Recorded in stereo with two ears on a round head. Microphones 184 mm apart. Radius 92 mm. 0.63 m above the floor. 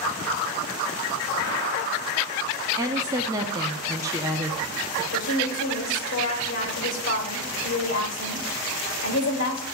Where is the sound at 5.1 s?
70° left (ahead or behind), 3 m.